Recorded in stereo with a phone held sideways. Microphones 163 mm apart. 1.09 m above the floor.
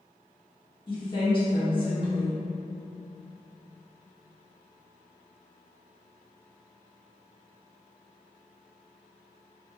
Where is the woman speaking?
35° left (ahead or behind), 1.8 m.